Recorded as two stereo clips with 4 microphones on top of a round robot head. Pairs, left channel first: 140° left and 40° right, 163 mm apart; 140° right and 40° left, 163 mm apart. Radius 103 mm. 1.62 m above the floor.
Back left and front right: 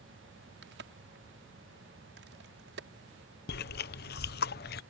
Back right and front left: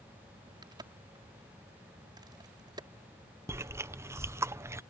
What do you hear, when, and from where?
0.6 s a crack: 25° right
3.5 s chewing: 115° left